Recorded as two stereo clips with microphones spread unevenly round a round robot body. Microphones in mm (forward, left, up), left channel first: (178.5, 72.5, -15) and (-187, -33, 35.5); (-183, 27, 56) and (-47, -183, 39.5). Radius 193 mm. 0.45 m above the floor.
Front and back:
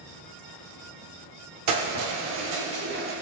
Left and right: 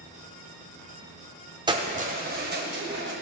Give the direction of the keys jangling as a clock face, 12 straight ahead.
4 o'clock.